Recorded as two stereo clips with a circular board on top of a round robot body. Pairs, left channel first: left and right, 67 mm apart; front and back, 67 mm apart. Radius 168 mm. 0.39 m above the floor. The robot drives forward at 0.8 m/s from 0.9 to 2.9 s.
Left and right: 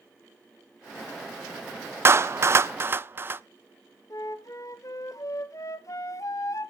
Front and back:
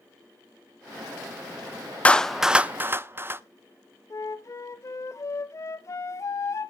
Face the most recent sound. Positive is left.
turn(degrees=50)